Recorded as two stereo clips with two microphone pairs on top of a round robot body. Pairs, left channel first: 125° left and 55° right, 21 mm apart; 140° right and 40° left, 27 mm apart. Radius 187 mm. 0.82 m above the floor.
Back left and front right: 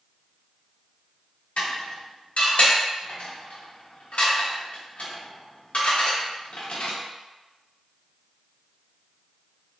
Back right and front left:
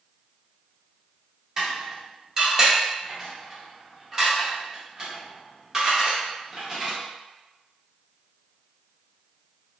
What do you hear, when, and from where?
1.6 s dishes clattering: 110° left, 0.9 m